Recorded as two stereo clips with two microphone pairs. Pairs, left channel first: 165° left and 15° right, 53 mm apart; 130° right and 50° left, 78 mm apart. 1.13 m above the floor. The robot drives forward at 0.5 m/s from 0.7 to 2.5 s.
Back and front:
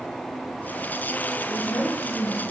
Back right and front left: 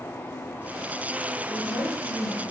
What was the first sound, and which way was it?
A woman speaking, 135° right.